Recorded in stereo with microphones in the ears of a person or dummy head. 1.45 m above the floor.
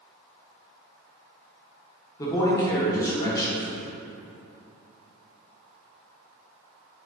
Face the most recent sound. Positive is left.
turn(degrees=20)  # may be behind; listen again after turning